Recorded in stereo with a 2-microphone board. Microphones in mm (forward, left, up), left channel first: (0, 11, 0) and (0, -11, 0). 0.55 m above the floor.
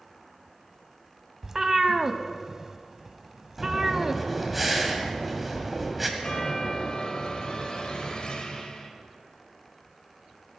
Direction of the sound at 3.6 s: 5° right (ahead or behind).